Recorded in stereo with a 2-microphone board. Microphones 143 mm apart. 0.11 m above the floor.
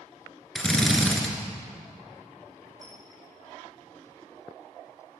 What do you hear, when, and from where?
0.6 s a drill: 5° left (ahead or behind), 1.7 m
2.8 s a squeak: 30° left (ahead or behind), 3.5 m